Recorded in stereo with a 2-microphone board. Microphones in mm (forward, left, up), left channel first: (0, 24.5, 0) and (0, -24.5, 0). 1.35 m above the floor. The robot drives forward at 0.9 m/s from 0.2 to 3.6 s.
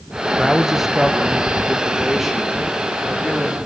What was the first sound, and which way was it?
A man speaking, 10° right (ahead or behind).